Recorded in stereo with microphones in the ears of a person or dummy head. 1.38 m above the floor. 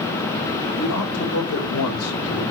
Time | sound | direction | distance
0.8 | a man speaking | 70° left (ahead or behind) | 4.5 m